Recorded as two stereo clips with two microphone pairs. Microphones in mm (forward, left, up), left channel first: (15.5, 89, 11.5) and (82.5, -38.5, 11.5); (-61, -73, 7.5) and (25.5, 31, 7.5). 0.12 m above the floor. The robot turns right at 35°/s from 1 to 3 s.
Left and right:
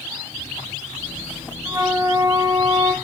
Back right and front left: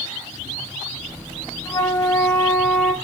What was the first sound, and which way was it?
A flute, 100° right.